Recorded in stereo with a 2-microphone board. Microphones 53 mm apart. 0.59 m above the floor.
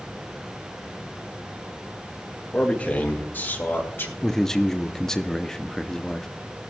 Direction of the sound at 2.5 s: 25° left (ahead or behind).